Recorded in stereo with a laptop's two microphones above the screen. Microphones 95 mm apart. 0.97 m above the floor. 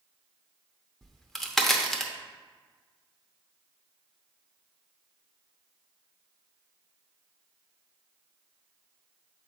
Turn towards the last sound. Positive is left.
turn(degrees=5)  # may be behind; listen again after turning